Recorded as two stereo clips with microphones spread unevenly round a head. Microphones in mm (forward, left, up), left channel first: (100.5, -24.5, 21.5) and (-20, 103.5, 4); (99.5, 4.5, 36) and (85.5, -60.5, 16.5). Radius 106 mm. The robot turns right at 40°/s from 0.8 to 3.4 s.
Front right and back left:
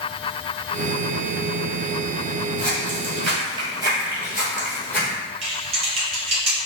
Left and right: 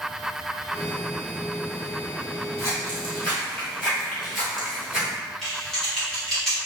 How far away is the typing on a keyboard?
About 0.7 m.